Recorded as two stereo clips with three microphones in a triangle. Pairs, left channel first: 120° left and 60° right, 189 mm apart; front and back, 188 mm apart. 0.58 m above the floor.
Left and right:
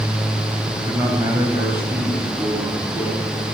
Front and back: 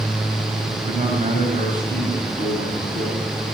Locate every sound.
0.7 s a man speaking: 135° right, 2.5 m; by 3.2 s 140° right, 4 m